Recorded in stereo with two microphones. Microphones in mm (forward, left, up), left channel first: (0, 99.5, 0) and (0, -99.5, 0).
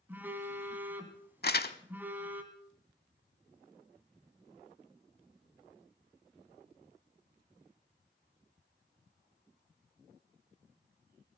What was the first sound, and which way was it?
A phone buzzing, 10° right (ahead or behind).